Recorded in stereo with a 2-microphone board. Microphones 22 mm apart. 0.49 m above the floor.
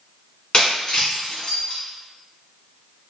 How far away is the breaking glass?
About 1.4 m.